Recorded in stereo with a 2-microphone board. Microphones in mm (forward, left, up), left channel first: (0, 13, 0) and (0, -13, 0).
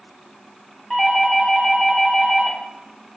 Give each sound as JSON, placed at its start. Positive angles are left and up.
{"t": 0.9, "sound": "a doorbell", "side_deg": 5, "distance_m": 1.0}